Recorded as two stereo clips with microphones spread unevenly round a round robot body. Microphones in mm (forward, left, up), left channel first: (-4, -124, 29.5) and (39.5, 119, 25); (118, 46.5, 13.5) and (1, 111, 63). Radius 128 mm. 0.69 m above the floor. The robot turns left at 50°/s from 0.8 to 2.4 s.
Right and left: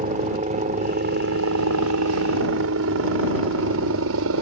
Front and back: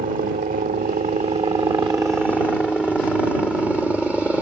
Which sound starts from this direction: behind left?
A helicopter, at 0.0 s.